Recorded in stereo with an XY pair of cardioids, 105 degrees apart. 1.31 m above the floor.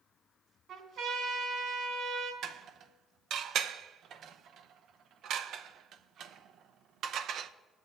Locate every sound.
0.7 s a trumpet: 70° right, 3.5 m
2.4 s dishes clattering: 70° right, 0.7 m